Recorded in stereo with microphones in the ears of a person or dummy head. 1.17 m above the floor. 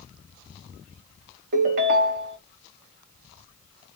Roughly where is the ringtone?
Right.